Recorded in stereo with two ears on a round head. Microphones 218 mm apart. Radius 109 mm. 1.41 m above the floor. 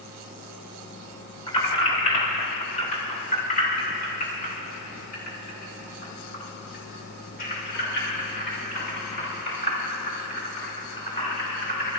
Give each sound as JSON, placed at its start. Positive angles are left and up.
{"t": 1.5, "sound": "keys jangling", "side_deg": 25, "distance_m": 3.5}